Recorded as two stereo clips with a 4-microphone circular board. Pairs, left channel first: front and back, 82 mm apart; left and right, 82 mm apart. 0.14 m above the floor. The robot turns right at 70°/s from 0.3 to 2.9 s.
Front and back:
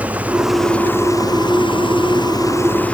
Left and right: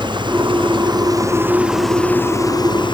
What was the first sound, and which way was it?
An engine running, 105° right.